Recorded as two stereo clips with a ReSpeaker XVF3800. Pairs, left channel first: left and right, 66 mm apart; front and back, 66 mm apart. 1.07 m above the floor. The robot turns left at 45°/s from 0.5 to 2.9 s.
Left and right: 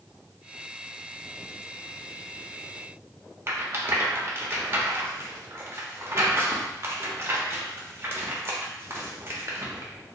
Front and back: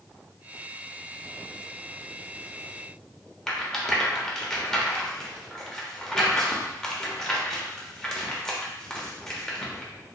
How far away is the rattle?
About 0.6 m.